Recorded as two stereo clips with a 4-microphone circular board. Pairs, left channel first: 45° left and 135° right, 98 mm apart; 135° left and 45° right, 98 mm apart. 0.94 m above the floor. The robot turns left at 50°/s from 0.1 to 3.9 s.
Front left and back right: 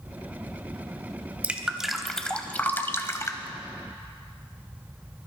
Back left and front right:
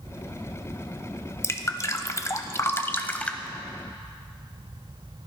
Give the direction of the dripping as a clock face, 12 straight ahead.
7 o'clock.